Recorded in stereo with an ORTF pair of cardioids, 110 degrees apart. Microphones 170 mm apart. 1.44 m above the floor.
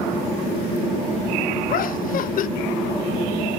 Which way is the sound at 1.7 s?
55° left.